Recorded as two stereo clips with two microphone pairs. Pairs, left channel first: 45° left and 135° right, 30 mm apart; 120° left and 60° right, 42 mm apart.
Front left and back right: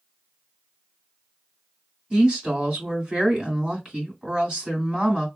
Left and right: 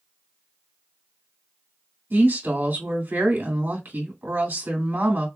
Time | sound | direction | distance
2.1 | a woman speaking | 85° right | 2.5 m